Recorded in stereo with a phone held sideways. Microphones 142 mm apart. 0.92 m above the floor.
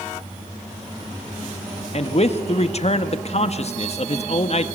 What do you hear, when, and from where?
1.9 s a man speaking: 50° left (ahead or behind), 1.8 m